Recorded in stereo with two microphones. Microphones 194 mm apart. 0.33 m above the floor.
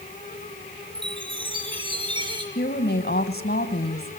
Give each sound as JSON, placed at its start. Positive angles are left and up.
{"t": 0.9, "sound": "a chime", "side_deg": -25, "distance_m": 3.5}
{"t": 2.5, "sound": "a woman speaking", "side_deg": 55, "distance_m": 2.5}